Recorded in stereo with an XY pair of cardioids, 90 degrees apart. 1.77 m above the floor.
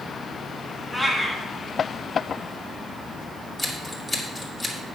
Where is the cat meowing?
5° right, 3 m.